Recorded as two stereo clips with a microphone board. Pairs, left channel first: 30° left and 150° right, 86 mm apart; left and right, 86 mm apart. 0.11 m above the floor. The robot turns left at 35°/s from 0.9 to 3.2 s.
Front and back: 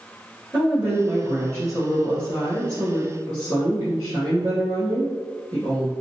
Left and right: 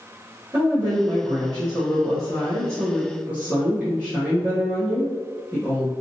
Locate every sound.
0.5 s a woman speaking: 80° right, 1.7 m; by 5.9 s 165° right, 1.7 m